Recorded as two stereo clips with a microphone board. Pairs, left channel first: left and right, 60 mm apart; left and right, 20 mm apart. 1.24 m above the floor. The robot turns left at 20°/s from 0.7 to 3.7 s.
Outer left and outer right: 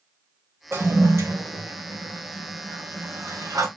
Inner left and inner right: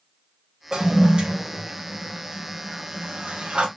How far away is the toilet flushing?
About 0.9 m.